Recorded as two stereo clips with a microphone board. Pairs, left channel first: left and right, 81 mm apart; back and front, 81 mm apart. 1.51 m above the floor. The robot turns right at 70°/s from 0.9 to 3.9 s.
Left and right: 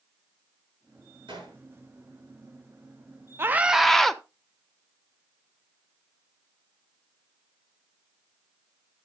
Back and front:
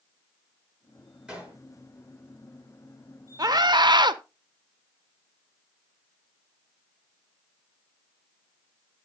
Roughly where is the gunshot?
Right.